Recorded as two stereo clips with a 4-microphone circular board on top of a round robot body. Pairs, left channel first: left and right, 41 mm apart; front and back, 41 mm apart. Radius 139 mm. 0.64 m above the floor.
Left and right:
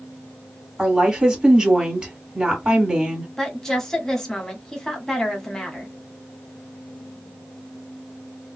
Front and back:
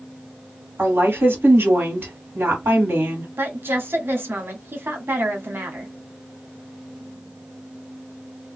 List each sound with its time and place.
0.8 s a woman speaking: 165° right, 2.5 m
3.4 s a woman speaking: 165° left, 1.9 m